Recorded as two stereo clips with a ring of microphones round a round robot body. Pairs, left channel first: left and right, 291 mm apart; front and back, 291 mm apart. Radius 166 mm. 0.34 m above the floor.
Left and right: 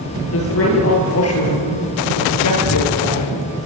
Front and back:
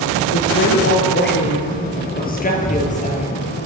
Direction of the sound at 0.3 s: 50° left.